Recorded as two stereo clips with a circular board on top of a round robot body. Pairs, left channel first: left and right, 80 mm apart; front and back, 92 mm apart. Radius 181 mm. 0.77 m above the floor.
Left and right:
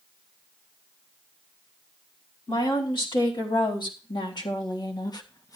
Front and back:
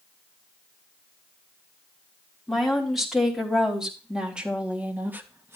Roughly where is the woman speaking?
Left.